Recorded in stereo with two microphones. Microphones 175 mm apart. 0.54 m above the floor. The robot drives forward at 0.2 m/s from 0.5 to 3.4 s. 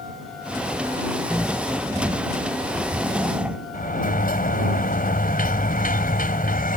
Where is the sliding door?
50° left (ahead or behind).